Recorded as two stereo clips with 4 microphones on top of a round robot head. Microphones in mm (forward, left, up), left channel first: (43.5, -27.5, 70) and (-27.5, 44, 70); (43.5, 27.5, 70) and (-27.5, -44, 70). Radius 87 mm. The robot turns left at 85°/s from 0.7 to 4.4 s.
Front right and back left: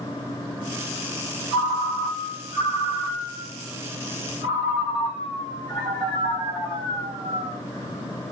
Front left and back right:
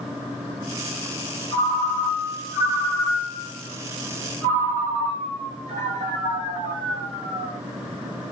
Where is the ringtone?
105° left, 1.8 m; by 7.6 s 140° right, 1.8 m.